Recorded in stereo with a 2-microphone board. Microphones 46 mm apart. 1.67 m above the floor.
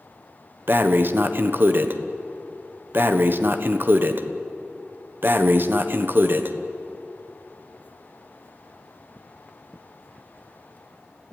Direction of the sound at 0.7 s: 55° right (ahead or behind).